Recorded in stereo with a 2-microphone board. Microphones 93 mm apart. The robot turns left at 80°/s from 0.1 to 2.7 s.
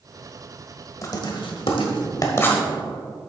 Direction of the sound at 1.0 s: 35° left (ahead or behind).